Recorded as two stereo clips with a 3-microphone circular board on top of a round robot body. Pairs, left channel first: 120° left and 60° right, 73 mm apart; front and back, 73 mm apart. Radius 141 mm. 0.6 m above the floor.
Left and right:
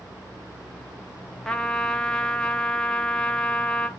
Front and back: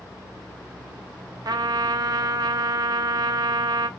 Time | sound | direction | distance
1.4 | a trumpet | 160° right | 0.5 m